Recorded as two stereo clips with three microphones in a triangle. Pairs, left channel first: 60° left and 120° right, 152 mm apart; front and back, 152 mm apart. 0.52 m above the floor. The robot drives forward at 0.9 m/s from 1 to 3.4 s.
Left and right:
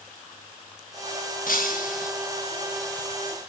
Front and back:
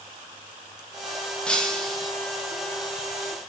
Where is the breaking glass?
85° left, 4.5 m; by 2.1 s 90° left, 4.5 m.